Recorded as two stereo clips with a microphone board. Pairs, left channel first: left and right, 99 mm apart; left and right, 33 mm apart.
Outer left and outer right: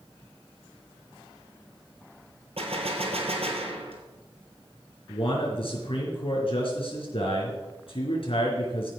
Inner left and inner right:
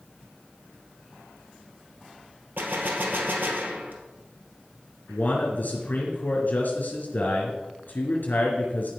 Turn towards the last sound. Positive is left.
turn(degrees=60)  # may be behind; listen again after turning